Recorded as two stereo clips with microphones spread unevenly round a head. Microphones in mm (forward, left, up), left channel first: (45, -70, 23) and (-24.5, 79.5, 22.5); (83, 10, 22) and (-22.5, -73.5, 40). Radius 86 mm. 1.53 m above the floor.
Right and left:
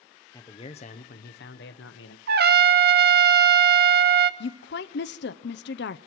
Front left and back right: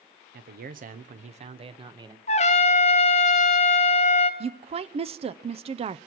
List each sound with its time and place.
0.3 s a man speaking: 135° right, 0.9 m; by 2.2 s 80° right, 1.2 m
2.3 s a trumpet: 85° left, 0.8 m
4.4 s a woman speaking: 95° right, 0.6 m